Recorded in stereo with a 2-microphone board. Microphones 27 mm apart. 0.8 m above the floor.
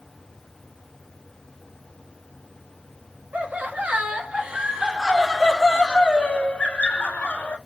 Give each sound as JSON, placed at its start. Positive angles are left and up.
{"t": 3.3, "sound": "laughter", "side_deg": -55, "distance_m": 1.4}